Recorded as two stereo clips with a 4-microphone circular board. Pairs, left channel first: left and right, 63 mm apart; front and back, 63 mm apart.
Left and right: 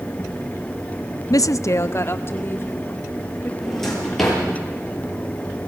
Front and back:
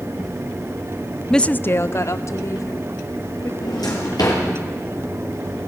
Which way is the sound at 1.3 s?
85° left.